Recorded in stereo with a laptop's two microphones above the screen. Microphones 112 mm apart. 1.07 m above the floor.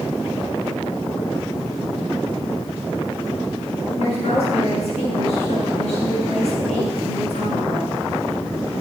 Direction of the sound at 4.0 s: 75° left (ahead or behind).